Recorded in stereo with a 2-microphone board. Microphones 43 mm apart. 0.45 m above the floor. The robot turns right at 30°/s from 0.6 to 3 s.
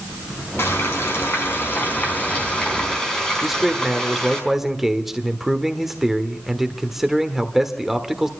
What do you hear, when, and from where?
0.6 s frying: 95° left, 4.5 m; by 4.4 s 165° left, 4.5 m
3.4 s a man speaking: 5° right (ahead or behind), 1.3 m